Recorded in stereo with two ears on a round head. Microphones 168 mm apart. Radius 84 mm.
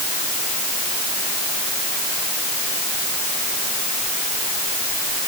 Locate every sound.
Only background noise.